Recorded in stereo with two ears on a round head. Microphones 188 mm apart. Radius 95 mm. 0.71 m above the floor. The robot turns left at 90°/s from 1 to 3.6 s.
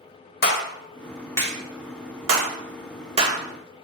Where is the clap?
45° left (ahead or behind), 1.1 m; by 3.4 s 10° right (ahead or behind), 1.1 m.